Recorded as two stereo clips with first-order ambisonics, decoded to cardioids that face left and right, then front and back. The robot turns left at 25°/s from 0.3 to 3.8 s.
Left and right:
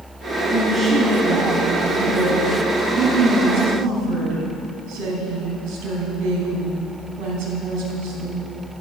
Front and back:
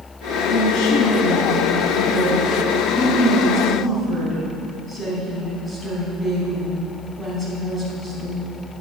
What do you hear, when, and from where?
0.5 s a woman speaking: 5° left, 4 m; by 8.4 s 75° right, 4 m